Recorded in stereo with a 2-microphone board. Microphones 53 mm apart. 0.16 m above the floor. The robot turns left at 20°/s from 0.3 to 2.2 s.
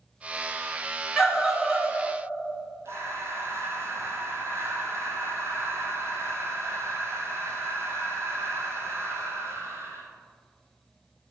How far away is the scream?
About 1.4 m.